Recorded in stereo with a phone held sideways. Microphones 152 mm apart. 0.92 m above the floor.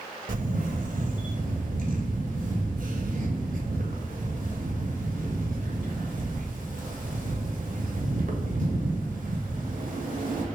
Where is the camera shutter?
65° right (ahead or behind), 0.6 m.